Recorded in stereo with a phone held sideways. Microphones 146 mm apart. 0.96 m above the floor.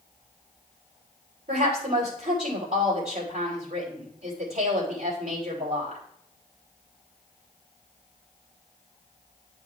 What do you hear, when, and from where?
1.5 s a woman speaking: 80° right, 3 m